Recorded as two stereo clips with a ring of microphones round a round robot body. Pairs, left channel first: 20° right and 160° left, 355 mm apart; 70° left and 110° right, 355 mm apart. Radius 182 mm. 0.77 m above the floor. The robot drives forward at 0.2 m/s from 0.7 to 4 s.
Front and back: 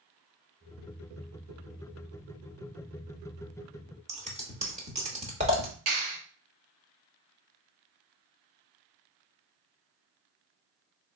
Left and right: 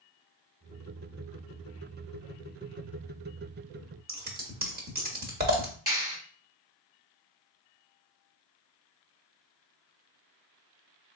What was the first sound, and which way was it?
Scissors, 150° right.